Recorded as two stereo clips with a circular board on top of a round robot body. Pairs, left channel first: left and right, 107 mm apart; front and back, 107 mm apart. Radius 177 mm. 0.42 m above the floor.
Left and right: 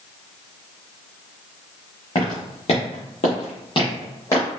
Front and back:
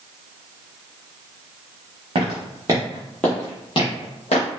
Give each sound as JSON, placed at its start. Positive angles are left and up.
{"t": 2.1, "sound": "footsteps", "azimuth_deg": 140, "distance_m": 0.8}